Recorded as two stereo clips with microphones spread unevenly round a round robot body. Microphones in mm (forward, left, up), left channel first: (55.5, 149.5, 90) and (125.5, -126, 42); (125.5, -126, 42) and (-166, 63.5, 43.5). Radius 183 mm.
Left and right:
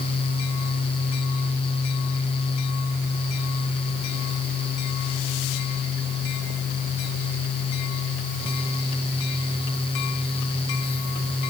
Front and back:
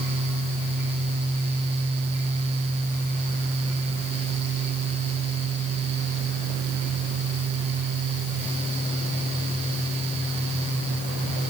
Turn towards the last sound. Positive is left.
No sound to turn to.